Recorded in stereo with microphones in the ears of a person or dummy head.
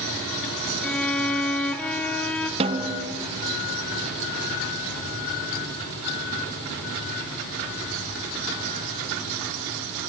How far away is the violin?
About 1.4 m.